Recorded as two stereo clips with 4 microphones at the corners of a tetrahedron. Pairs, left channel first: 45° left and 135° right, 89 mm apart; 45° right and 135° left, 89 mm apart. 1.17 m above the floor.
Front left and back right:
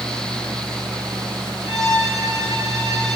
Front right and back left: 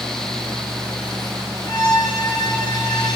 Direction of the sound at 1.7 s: 85° right.